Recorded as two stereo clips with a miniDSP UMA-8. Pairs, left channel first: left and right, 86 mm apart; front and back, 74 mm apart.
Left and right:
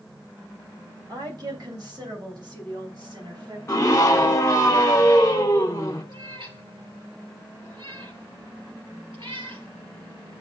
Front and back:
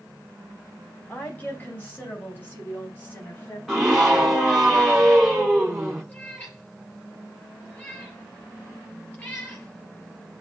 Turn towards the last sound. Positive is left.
turn(degrees=-70)